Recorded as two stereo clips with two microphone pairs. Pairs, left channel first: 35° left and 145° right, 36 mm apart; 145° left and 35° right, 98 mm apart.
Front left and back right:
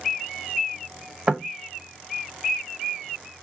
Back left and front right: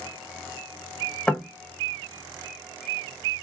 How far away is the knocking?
About 0.8 m.